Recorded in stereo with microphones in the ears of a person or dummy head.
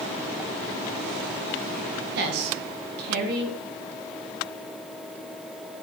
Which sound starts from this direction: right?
A woman speaking, at 2.1 s.